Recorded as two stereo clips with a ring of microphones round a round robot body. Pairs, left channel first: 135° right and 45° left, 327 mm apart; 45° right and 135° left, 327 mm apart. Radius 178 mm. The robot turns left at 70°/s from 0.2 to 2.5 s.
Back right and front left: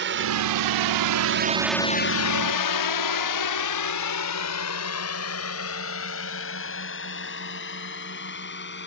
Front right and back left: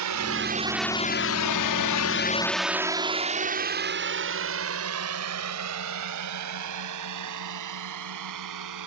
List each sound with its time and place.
0.0 s a drone: 100° left; by 8.9 s 165° left